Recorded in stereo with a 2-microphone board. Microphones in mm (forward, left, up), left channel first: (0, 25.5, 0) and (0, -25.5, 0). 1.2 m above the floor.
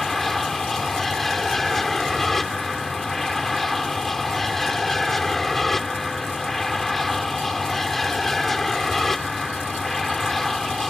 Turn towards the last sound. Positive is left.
turn(degrees=5)  # may be behind; listen again after turning